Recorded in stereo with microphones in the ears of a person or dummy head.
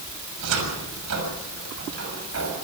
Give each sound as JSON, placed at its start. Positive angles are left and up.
{"t": 0.4, "sound": "a cupboard door", "side_deg": -70, "distance_m": 6.5}